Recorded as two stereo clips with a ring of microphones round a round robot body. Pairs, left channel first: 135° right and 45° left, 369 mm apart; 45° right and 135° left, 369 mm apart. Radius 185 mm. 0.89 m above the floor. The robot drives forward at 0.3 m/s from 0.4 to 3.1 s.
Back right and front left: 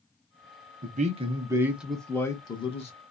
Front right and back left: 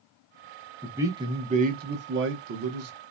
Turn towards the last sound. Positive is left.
turn(degrees=160)